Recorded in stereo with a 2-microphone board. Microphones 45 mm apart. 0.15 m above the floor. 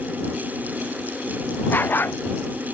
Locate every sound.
1.7 s a dog barking: 50° left (ahead or behind)